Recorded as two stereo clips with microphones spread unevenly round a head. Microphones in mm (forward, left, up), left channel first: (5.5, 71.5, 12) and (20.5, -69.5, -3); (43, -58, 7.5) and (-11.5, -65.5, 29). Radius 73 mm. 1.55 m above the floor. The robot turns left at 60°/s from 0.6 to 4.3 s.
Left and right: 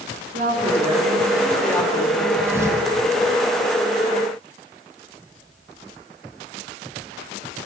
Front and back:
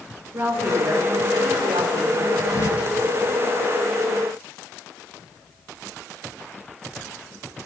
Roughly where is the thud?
Ahead.